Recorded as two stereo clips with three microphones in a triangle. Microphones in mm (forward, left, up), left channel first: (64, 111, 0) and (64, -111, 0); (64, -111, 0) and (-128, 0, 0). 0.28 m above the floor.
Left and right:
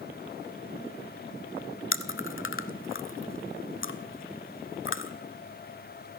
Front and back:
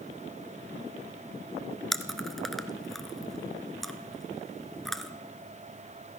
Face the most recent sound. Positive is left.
turn(degrees=60)